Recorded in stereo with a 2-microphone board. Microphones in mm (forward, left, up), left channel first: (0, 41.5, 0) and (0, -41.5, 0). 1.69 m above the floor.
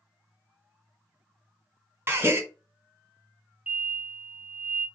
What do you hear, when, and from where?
2.1 s a gasp: 30° right (ahead or behind), 0.7 m
3.7 s an explosion: 15° right (ahead or behind), 0.8 m